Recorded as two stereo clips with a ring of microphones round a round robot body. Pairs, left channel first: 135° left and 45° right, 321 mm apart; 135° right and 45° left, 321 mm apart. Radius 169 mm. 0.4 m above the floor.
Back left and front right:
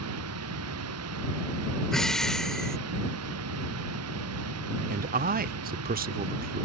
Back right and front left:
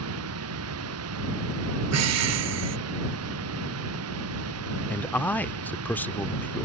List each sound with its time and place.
0.0 s running water: straight ahead
1.9 s breathing: 45° left
4.9 s a man speaking: 55° right